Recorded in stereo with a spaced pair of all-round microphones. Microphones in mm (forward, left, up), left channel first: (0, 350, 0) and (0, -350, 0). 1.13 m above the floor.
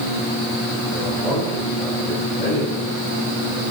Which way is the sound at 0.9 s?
80° left.